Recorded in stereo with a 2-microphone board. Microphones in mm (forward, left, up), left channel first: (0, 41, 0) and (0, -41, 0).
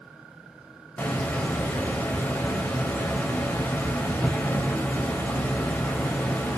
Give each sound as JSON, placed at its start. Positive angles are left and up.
{"t": 1.0, "sound": "a hiss", "side_deg": 15, "distance_m": 0.5}